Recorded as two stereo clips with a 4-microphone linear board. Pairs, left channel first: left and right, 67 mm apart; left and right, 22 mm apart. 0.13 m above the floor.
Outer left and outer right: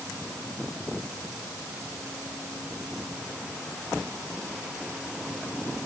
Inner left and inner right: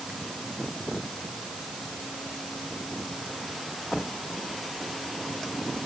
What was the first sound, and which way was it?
Only background noise.